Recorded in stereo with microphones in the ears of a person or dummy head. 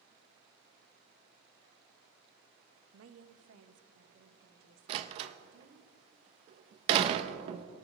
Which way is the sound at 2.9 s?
75° right (ahead or behind).